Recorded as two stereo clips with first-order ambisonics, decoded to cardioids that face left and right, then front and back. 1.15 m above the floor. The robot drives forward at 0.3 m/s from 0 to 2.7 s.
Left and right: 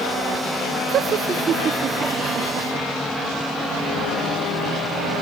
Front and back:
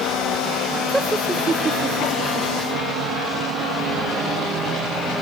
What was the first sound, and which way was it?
Laughter, 100° right.